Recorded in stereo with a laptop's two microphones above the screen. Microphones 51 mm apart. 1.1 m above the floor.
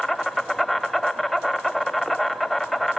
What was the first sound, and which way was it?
An insect, centre (ahead or behind).